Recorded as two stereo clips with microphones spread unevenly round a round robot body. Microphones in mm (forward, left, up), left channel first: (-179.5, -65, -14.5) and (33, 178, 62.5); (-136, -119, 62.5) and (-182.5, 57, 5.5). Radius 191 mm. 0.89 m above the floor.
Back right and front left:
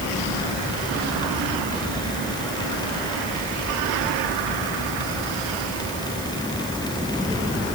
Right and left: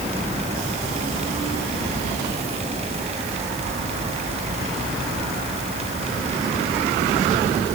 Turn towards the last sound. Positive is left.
No sound to turn to.